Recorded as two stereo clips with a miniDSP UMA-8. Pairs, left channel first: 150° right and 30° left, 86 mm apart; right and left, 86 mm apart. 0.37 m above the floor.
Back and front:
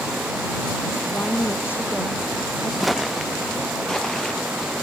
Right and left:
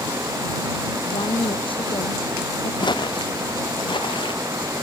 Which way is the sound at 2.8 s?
60° right.